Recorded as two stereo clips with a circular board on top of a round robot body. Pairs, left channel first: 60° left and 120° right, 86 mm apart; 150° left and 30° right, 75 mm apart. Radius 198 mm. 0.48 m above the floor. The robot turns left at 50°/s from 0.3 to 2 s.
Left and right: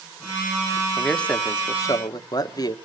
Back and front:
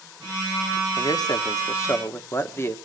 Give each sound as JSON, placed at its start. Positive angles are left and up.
{"t": 1.0, "sound": "a man speaking", "azimuth_deg": 150, "distance_m": 1.3}